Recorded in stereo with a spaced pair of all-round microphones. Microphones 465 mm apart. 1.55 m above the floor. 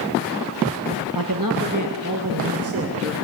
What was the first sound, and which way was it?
A man speaking, 50° right (ahead or behind).